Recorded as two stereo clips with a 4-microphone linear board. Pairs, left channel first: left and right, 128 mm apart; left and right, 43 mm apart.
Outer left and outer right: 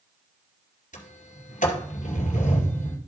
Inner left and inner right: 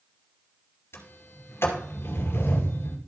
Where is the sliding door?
80° left, 2 m.